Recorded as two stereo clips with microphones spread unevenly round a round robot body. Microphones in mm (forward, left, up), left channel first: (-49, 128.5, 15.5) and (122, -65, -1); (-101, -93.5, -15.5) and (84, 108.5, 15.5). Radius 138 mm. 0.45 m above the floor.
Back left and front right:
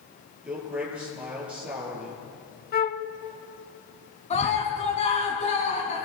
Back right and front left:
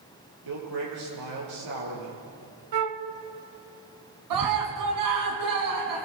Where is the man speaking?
35° left, 9.5 m.